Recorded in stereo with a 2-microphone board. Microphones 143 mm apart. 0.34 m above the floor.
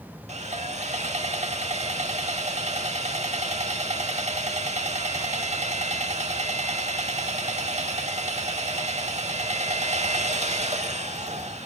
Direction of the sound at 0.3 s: 50° right (ahead or behind).